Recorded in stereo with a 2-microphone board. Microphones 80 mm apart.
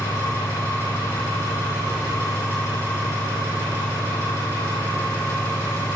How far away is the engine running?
About 3.5 m.